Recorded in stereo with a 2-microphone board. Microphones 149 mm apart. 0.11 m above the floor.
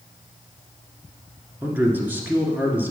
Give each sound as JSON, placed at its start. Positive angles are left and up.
{"t": 1.6, "sound": "a man speaking", "side_deg": -15, "distance_m": 1.3}